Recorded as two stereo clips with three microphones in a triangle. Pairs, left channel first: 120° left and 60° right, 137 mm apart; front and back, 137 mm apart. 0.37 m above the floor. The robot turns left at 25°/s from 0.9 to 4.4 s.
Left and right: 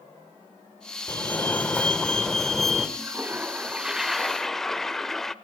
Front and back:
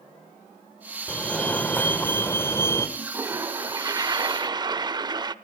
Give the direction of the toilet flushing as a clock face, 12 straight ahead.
4 o'clock.